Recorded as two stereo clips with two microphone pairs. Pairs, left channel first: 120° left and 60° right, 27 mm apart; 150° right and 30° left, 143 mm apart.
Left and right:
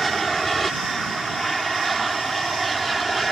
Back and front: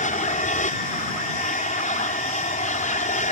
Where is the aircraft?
155° right; by 3.3 s 150° right.